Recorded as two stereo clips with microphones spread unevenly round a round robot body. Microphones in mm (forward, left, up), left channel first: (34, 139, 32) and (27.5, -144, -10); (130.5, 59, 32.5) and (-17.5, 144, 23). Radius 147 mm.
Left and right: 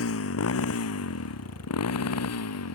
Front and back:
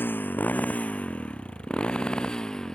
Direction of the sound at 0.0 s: 50° left.